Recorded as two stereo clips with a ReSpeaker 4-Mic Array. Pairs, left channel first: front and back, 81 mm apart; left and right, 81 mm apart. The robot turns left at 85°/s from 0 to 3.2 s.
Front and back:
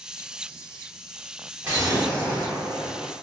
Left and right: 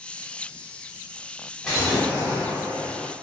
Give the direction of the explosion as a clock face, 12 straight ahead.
7 o'clock.